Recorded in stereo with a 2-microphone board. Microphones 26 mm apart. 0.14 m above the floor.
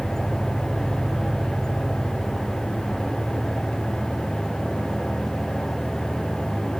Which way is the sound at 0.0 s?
40° right (ahead or behind).